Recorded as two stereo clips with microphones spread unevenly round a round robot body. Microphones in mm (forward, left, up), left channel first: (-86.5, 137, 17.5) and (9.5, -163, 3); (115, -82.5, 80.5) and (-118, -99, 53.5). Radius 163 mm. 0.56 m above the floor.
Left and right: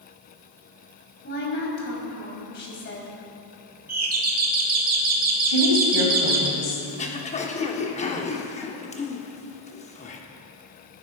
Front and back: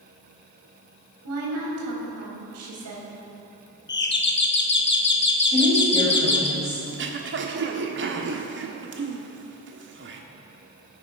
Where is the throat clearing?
175° left, 1.3 m.